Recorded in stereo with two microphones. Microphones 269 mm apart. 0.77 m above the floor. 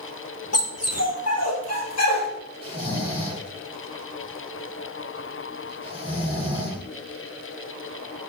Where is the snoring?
20° right (ahead or behind), 8.5 m.